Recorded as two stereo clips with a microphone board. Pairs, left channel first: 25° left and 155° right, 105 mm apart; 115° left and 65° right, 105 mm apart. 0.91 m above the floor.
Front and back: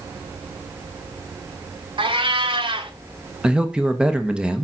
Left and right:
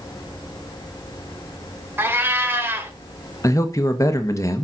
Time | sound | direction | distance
2.0 | a cat meowing | 135° right | 1.1 m
3.4 | a man speaking | 130° left | 1.0 m